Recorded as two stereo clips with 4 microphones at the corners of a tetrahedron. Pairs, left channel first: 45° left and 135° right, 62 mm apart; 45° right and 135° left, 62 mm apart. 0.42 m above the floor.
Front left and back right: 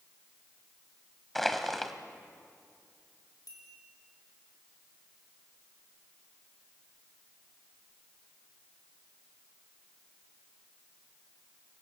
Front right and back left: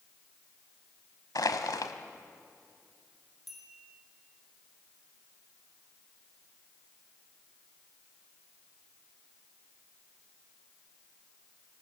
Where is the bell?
45° left, 5.5 m.